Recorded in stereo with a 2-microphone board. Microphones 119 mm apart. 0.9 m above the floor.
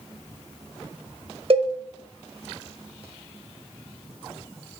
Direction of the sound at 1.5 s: 55° right (ahead or behind).